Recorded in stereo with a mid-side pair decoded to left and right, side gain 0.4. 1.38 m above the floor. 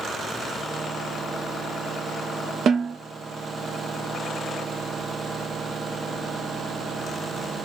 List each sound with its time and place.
2.7 s a snare drum: 65° right, 0.8 m